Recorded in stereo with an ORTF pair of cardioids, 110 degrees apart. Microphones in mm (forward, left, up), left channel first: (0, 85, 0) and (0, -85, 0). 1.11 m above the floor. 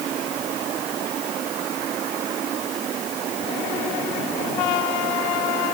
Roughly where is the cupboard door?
No cupboard door in this recording.